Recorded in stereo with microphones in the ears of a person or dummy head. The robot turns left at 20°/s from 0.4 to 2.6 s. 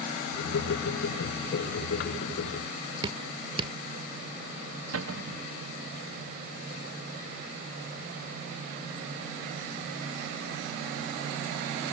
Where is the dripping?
35° right (ahead or behind).